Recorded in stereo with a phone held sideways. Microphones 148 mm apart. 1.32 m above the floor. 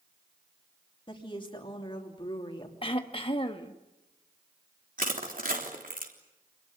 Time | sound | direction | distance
1.1 | a woman speaking | 35° left (ahead or behind) | 3 m
2.8 | throat clearing | 40° left (ahead or behind) | 1.5 m
5.0 | crushing | 75° right (ahead or behind) | 3.5 m